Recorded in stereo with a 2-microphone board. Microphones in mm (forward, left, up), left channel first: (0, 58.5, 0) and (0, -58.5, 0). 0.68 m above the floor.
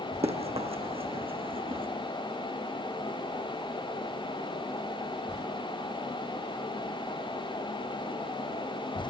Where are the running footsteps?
60° right (ahead or behind), 2.5 m; by 1.9 s 50° right (ahead or behind), 3 m.